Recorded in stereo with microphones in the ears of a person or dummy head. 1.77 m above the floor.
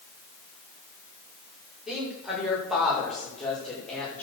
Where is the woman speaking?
5° right (ahead or behind), 7 m; by 4.2 s 5° left (ahead or behind), 6 m.